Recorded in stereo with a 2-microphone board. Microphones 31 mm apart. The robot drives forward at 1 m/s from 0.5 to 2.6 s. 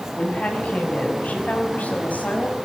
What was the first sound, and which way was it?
A woman speaking, 50° left (ahead or behind).